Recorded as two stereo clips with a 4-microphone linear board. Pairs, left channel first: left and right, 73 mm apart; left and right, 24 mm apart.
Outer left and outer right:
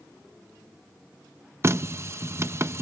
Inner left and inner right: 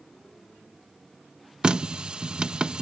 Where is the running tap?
40° right (ahead or behind).